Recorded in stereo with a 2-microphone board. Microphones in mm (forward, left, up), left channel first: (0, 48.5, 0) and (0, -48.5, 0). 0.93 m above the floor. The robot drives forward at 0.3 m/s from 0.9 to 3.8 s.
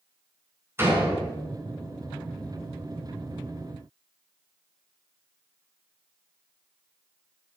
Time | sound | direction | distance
0.8 | a door slam | 25° right (ahead or behind) | 6.5 m